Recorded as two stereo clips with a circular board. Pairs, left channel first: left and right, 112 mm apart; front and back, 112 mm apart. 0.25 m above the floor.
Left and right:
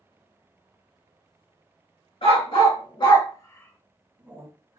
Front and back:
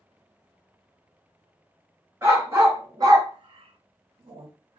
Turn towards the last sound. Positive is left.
turn(degrees=-140)